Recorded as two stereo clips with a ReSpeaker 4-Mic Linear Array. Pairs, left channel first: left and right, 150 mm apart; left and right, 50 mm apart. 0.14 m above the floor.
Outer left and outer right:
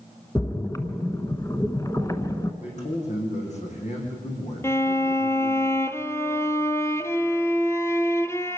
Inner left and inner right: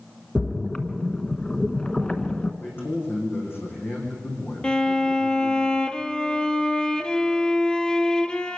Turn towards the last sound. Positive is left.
turn(degrees=20)  # may be behind; listen again after turning